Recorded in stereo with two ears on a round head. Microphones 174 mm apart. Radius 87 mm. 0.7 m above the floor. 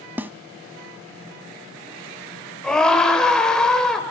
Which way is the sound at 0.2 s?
10° right (ahead or behind).